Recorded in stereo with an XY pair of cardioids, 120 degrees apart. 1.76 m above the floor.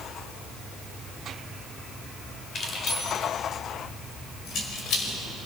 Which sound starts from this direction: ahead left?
Keys jangling, at 2.5 s.